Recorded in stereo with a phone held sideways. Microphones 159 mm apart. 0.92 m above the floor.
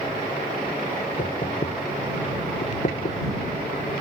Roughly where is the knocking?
Left.